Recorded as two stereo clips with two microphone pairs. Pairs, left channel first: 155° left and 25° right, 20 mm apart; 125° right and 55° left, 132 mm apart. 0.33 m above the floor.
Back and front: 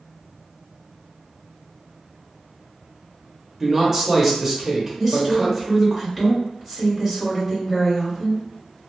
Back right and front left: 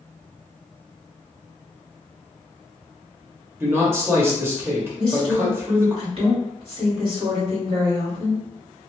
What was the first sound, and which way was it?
A man speaking, 20° left.